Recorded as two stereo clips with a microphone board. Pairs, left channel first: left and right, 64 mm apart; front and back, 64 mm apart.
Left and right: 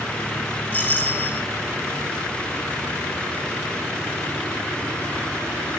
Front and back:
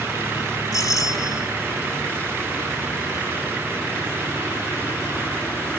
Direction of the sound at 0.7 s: 25° left.